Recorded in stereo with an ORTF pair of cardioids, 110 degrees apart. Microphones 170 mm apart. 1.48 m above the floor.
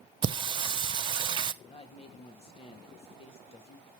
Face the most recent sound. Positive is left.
turn(degrees=35)